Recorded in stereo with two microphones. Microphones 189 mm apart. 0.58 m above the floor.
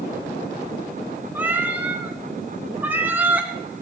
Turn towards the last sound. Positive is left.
turn(degrees=-10)  # may be behind; listen again after turning